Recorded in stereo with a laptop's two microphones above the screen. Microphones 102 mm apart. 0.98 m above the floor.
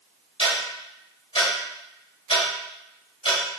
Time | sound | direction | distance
0.4 | ticking | 75° left (ahead or behind) | 2.5 m